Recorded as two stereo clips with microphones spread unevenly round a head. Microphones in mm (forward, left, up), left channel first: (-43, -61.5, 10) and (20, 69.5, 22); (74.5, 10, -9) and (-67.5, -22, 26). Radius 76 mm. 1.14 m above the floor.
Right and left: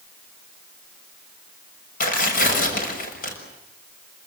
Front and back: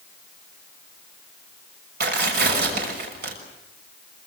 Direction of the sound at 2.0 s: 145° right.